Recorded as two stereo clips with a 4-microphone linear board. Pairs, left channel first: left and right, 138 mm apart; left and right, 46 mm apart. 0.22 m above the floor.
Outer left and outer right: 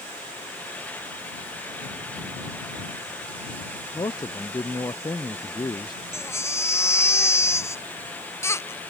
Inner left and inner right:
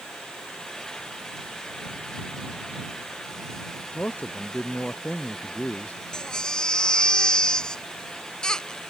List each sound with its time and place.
3.9 s a man speaking: 30° left (ahead or behind)
6.1 s a baby crying: 20° left (ahead or behind)